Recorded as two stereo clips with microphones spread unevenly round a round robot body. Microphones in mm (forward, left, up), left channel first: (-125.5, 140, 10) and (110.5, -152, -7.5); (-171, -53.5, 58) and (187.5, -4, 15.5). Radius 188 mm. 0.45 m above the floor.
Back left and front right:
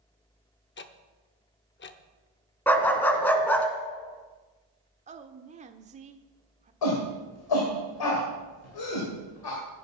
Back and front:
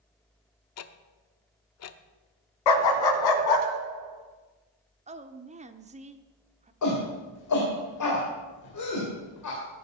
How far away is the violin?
I don't hear a violin.